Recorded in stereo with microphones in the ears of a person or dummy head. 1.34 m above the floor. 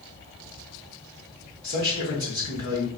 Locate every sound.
1.6 s a man speaking: 35° left (ahead or behind), 2 m